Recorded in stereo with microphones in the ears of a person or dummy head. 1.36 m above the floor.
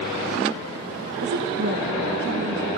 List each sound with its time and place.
1.2 s a woman speaking: 60° right (ahead or behind), 0.9 m